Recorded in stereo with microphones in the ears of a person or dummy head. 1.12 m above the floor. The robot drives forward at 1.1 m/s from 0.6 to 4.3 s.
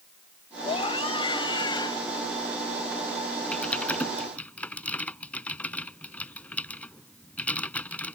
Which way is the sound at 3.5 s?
10° left (ahead or behind).